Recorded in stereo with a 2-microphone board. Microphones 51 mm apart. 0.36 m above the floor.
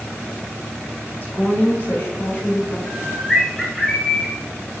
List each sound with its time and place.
1.2 s a woman speaking: 45° left (ahead or behind), 1.9 m
2.9 s a bird: centre (ahead or behind), 0.9 m